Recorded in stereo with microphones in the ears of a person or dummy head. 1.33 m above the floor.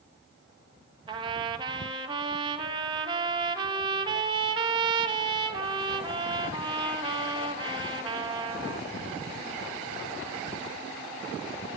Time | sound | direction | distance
1.1 | a trumpet | 25° right (ahead or behind) | 1.7 m